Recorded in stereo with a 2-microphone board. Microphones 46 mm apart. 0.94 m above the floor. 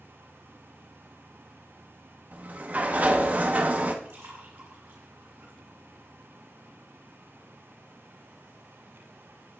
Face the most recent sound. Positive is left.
turn(degrees=-60)  # may be behind; listen again after turning